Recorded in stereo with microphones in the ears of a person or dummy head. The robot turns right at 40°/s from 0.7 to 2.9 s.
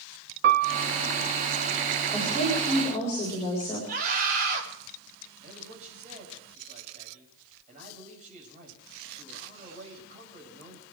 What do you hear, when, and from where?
0.4 s a piano: 55° right (ahead or behind), 1.2 m; by 0.8 s 60° right (ahead or behind), 1.2 m
2.1 s a woman speaking: 15° right, 7 m; by 3.8 s 15° left, 7 m
3.9 s a scream: 45° right (ahead or behind), 5 m
5.4 s a man speaking: 35° right (ahead or behind), 7 m